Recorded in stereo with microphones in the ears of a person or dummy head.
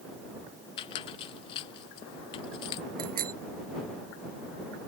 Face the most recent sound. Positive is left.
turn(degrees=-50)  # may be behind; listen again after turning